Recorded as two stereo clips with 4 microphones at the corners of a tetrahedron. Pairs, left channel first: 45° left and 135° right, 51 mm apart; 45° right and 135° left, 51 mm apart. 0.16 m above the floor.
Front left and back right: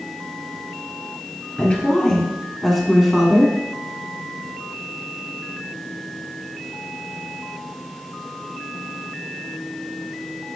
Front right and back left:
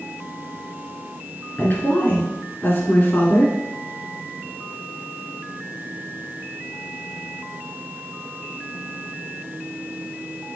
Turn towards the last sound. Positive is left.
turn(degrees=-70)